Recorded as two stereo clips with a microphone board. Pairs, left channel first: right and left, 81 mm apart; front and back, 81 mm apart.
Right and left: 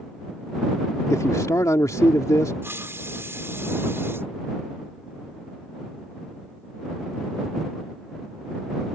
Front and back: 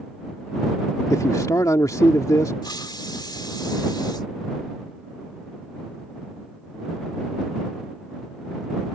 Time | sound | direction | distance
1.1 | a man speaking | 45° right | ?
2.6 | a hiss | 30° left | ?